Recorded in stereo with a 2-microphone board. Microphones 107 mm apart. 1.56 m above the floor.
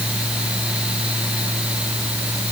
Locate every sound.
Only background noise.